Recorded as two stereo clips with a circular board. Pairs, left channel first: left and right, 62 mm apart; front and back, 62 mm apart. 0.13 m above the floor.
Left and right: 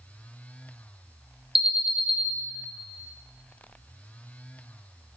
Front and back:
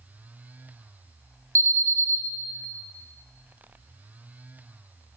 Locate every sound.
1.6 s an alarm: 165° right, 2 m